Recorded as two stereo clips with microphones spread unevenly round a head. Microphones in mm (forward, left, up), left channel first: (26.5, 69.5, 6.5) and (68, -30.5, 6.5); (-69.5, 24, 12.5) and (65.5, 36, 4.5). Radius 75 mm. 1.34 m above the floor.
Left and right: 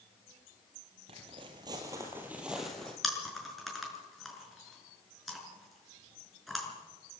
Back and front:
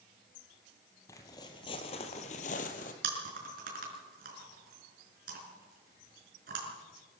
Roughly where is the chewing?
Ahead left.